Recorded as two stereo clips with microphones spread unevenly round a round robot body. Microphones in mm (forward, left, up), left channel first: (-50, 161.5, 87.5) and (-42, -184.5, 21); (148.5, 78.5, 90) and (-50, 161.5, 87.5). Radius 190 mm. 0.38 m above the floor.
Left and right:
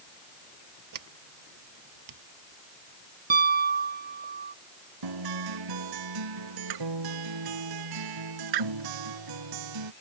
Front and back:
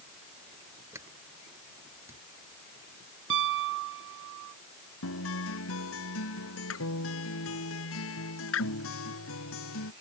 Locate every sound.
0.9 s a sliding door: 120° right
3.3 s a piano: 155° right
5.0 s a guitar: 60° right